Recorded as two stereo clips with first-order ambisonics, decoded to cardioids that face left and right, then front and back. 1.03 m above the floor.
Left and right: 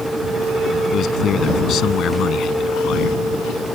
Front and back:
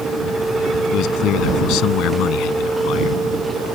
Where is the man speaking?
35° left.